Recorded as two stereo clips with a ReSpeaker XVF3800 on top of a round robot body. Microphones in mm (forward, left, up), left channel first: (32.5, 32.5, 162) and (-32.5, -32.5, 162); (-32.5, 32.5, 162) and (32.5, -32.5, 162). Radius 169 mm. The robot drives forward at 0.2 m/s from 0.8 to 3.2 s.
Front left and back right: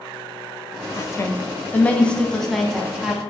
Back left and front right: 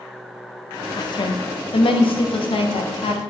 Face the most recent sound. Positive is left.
turn(degrees=140)